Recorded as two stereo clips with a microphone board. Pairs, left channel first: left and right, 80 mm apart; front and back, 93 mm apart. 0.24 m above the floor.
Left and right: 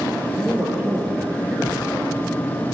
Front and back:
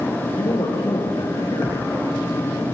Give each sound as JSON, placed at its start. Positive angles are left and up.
{"t": 0.4, "sound": "a man speaking", "azimuth_deg": -25, "distance_m": 6.0}